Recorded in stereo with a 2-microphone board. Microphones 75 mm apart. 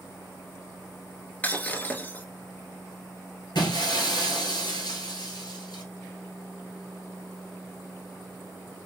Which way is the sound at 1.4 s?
20° left (ahead or behind).